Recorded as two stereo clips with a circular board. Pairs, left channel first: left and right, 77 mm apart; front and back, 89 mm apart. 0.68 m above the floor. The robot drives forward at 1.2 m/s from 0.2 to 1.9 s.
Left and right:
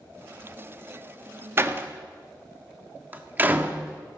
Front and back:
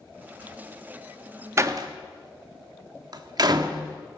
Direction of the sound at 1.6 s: 130° right.